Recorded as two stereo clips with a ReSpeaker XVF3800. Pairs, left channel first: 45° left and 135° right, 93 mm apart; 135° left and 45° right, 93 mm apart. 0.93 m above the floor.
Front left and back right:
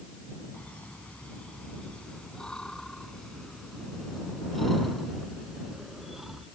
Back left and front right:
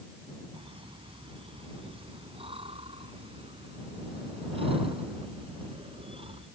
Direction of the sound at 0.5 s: 30° right.